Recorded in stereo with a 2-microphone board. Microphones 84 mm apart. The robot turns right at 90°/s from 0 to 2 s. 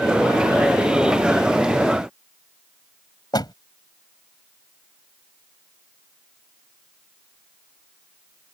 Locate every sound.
3.3 s a door slam: 55° left (ahead or behind)